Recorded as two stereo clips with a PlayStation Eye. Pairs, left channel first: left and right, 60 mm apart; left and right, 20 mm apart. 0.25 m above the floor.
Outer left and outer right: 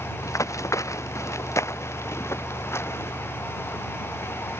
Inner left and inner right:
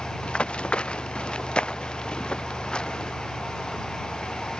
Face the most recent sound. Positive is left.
turn(degrees=45)  # may be behind; listen again after turning